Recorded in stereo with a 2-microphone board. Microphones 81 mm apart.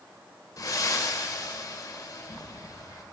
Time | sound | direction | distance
0.6 | breathing | 50° left (ahead or behind) | 1.2 m